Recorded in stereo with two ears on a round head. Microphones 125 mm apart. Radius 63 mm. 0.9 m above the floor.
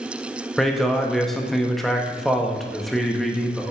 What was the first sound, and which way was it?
A man speaking, centre (ahead or behind).